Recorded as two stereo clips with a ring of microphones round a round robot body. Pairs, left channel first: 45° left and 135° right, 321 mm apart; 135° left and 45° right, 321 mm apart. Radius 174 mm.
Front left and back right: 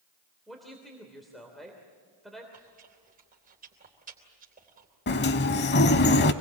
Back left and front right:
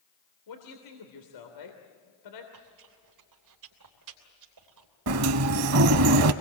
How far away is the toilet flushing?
I don't hear a toilet flushing.